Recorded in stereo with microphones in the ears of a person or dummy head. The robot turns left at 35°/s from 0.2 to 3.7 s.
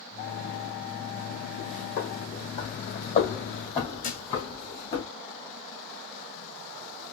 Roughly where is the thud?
Left.